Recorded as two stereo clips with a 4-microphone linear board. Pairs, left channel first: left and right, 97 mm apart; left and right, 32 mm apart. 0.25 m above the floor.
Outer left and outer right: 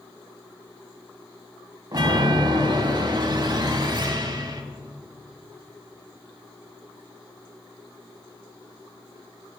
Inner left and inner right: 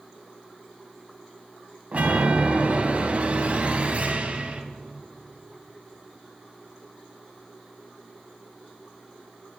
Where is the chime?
45° right (ahead or behind), 0.5 m.